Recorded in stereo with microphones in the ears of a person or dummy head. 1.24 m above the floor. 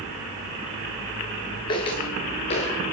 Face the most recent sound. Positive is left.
turn(degrees=35)  # may be behind; listen again after turning